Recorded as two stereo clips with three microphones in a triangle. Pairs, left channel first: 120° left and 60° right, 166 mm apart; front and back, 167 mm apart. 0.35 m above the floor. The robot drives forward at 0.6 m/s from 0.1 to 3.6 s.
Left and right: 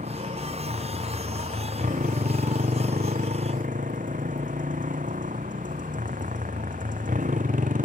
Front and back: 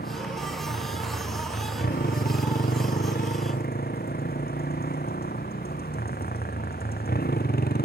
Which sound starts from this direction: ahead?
A motorcycle, at 0.0 s.